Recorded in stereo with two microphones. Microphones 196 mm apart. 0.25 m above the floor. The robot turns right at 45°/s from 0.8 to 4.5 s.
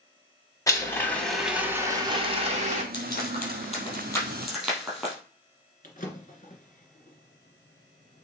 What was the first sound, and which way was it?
A blender, 155° left.